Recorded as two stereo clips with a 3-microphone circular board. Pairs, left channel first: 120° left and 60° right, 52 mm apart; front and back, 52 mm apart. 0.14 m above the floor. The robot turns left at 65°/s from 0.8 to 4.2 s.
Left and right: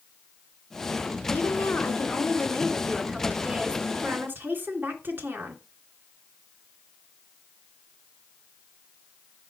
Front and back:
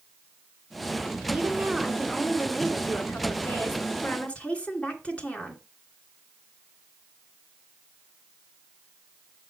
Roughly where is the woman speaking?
Behind left.